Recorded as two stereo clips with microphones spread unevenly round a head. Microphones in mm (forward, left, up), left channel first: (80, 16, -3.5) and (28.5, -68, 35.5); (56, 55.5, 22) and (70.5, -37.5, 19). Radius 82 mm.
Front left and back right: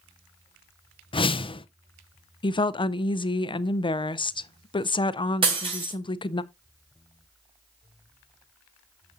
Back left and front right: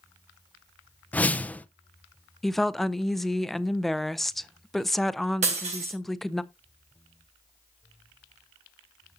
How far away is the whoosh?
About 0.7 m.